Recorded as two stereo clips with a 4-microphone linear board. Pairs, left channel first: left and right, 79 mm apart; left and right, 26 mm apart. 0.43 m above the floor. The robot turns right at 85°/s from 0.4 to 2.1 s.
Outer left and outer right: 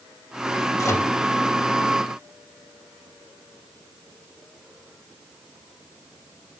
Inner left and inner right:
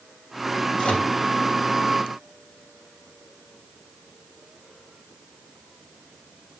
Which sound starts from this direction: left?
A microwave, at 0.8 s.